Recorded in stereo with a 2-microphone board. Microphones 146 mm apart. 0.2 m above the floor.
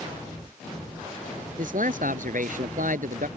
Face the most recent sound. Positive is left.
turn(degrees=-70)  # may be behind; listen again after turning